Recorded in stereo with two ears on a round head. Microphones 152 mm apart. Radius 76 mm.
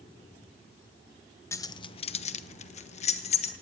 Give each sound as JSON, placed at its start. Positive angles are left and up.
{"t": 1.5, "sound": "keys jangling", "side_deg": 15, "distance_m": 0.8}